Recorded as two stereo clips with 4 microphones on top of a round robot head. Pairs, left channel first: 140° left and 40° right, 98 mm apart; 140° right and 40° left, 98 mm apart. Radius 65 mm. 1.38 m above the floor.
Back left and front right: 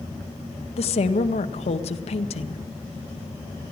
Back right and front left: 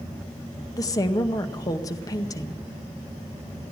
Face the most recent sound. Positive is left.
turn(degrees=165)